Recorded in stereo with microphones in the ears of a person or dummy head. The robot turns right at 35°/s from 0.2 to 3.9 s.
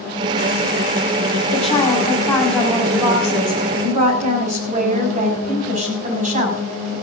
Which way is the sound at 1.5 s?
140° left.